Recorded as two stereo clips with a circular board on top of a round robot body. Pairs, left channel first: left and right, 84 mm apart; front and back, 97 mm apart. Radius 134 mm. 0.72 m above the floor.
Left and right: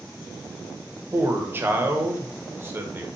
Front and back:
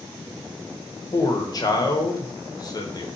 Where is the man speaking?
35° right, 0.7 m.